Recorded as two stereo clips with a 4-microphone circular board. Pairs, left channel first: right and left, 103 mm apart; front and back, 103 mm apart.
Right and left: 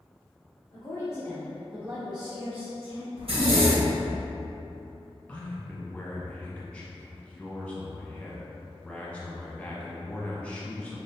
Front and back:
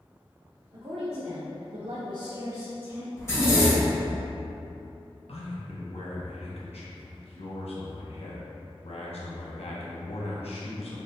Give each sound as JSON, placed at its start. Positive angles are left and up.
{"t": 0.7, "sound": "a woman speaking", "azimuth_deg": -145, "distance_m": 0.8}
{"t": 3.2, "sound": "a zipper", "azimuth_deg": 65, "distance_m": 1.0}
{"t": 5.3, "sound": "a man speaking", "azimuth_deg": -10, "distance_m": 0.8}